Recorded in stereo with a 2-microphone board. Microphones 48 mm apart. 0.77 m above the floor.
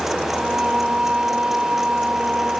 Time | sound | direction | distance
0.3 | singing | 20° right (ahead or behind) | ?